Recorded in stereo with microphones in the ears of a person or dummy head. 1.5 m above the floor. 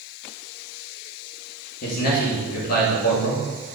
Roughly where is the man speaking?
Left.